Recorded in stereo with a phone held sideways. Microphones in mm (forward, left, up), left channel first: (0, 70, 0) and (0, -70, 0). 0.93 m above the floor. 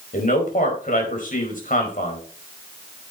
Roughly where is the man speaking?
Left.